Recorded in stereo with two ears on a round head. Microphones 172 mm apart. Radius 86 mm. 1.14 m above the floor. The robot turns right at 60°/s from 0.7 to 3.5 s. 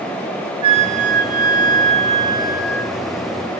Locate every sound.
0.6 s a flute: 135° right, 0.9 m; by 2.9 s straight ahead, 0.9 m